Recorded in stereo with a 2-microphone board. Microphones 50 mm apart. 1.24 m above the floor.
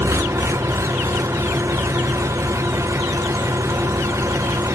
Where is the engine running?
75° right (ahead or behind), 0.8 m.